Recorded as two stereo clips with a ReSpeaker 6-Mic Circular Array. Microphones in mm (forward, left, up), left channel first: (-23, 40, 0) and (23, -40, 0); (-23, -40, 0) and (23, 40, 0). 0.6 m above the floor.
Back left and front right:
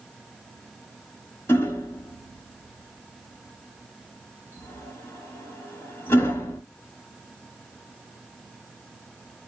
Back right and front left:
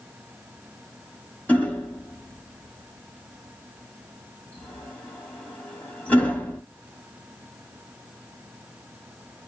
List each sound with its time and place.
1.5 s hammering: 170° left, 1.2 m